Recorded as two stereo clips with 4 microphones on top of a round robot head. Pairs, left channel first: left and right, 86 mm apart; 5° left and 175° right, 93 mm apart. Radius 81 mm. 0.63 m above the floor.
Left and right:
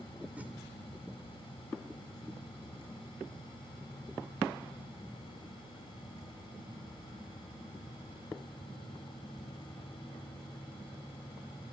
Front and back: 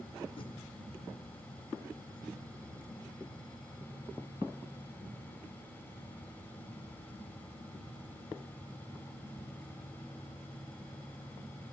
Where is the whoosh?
20° right, 2.5 m.